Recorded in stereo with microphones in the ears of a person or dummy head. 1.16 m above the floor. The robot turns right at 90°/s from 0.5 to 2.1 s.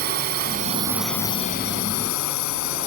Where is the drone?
50° right (ahead or behind); by 2.9 s 85° left.